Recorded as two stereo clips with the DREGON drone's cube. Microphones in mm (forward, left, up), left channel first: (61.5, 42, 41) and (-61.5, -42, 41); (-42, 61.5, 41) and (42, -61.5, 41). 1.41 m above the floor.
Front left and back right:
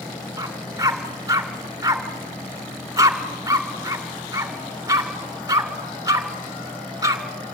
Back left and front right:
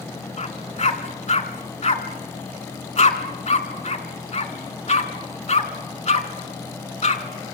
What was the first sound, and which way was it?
A dog barking, 150° left.